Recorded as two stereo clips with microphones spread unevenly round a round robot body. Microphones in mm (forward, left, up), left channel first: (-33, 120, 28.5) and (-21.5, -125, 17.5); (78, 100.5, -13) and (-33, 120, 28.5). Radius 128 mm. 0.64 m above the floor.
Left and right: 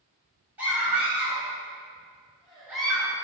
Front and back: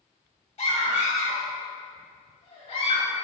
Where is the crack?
No crack in this recording.